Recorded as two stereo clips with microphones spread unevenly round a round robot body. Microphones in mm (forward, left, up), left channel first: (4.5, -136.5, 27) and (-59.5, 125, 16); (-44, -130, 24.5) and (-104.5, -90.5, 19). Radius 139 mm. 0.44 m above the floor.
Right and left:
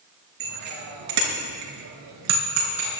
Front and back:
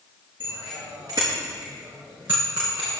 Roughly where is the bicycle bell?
Left.